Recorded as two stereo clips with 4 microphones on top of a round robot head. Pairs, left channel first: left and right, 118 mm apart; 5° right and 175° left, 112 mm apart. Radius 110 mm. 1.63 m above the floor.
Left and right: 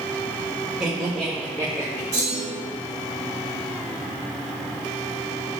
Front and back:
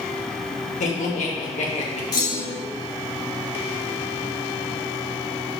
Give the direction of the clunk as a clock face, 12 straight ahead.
11 o'clock.